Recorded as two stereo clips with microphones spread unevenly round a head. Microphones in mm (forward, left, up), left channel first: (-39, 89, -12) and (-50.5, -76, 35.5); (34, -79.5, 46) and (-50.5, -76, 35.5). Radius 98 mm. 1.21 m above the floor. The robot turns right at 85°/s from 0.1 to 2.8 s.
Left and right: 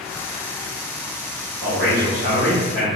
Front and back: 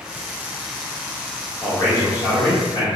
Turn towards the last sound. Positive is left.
turn(degrees=10)